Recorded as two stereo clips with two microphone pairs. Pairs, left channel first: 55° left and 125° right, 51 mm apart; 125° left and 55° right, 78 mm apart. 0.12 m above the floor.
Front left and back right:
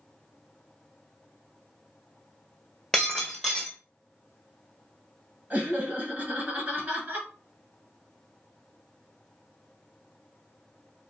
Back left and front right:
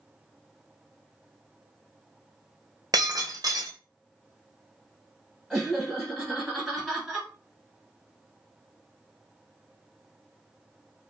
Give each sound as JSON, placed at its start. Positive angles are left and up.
{"t": 2.9, "sound": "breaking glass", "azimuth_deg": -25, "distance_m": 0.9}
{"t": 5.5, "sound": "laughter", "azimuth_deg": -145, "distance_m": 1.5}